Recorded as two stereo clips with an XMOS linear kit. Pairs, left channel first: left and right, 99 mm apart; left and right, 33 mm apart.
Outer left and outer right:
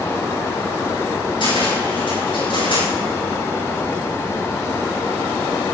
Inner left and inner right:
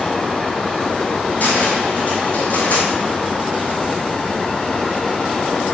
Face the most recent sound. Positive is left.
turn(degrees=55)  # may be behind; listen again after turning